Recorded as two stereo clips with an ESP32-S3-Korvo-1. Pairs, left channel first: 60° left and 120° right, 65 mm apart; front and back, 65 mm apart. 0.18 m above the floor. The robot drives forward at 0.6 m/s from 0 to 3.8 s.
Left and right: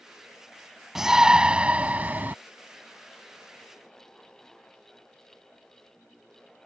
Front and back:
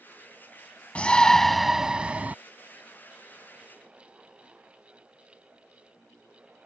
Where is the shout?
45° right; by 2.4 s 145° right.